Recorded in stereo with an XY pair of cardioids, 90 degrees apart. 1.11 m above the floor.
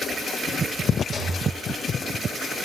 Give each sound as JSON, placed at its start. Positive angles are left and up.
{"t": 1.1, "sound": "a rattle", "azimuth_deg": 45, "distance_m": 10.0}